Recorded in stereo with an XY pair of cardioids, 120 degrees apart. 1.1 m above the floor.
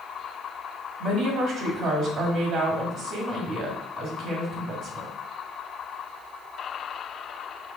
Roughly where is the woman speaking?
Ahead right.